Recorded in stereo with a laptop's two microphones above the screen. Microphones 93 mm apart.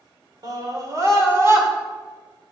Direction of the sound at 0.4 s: 45° right (ahead or behind).